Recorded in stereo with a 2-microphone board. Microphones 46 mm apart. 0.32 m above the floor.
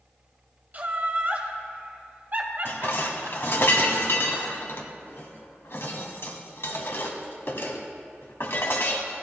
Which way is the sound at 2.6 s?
65° left (ahead or behind).